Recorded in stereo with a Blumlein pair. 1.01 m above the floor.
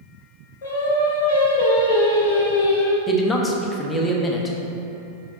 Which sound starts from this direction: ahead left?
Singing, at 0.6 s.